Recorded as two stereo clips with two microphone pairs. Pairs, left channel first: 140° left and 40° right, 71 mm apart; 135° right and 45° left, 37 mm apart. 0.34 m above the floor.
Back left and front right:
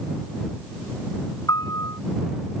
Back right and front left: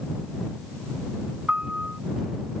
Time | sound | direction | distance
1.5 | a piano | 105° left | ?